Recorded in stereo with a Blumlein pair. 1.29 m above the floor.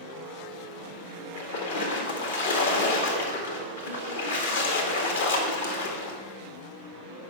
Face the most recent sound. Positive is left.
turn(degrees=65)